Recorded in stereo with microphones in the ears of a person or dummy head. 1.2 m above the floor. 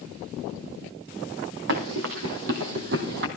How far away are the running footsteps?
About 3 m.